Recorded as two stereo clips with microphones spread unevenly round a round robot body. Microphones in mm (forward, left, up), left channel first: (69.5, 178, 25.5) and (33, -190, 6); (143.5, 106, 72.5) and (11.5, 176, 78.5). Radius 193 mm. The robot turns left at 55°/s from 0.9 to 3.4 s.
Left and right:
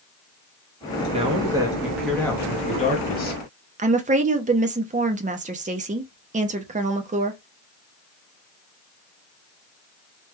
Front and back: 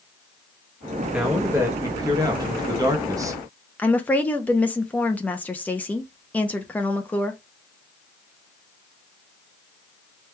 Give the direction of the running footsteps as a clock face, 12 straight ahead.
I don't hear running footsteps.